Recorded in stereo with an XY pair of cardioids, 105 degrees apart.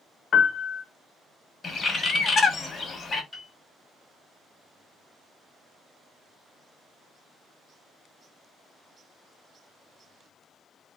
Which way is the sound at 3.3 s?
10° left.